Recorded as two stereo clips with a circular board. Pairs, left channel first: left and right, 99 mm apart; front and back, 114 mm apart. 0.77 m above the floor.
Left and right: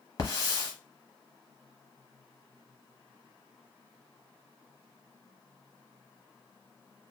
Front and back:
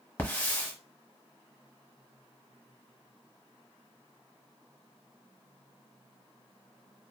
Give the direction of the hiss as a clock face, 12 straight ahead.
10 o'clock.